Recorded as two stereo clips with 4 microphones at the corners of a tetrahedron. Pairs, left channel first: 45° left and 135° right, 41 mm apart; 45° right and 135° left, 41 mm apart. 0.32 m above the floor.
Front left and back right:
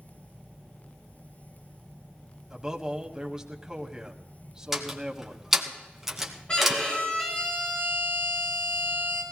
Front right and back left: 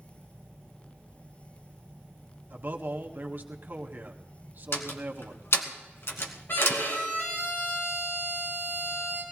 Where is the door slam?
55° right, 1.8 m.